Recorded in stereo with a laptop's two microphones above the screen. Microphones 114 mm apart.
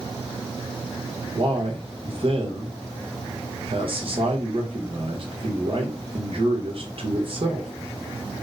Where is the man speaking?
50° right (ahead or behind), 0.9 m.